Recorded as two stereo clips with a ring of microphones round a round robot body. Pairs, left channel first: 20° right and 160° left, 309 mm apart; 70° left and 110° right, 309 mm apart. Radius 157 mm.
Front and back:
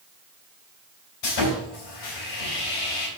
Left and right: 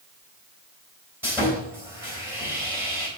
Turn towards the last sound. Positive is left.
turn(degrees=-30)